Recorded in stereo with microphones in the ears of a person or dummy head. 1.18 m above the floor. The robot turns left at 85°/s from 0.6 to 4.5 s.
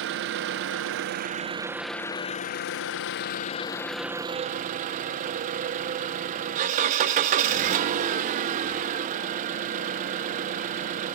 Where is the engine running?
70° right, 0.7 m; by 11.2 s 40° right, 0.7 m.